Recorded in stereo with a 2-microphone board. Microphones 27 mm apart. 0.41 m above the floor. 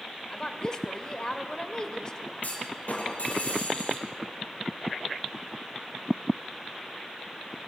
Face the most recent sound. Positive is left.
turn(degrees=60)  # may be behind; listen again after turning